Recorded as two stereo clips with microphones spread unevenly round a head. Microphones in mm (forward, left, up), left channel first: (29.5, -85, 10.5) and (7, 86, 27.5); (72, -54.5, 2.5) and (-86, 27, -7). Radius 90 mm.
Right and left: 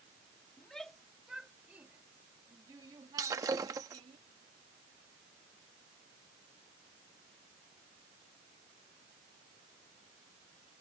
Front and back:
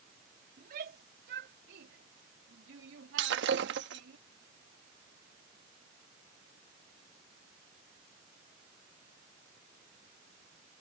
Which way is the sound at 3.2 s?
165° left.